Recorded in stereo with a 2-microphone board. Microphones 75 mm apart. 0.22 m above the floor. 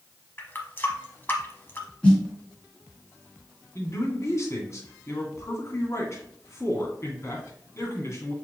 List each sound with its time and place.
0.4 s a running tap: 30° left (ahead or behind), 1.0 m
2.0 s a snare drum: 15° left (ahead or behind), 2 m
3.8 s a man speaking: 40° left (ahead or behind), 2 m